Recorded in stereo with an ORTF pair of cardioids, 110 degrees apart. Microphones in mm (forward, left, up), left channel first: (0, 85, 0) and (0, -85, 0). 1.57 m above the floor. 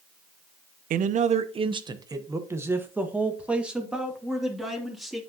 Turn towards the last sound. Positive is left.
turn(degrees=0)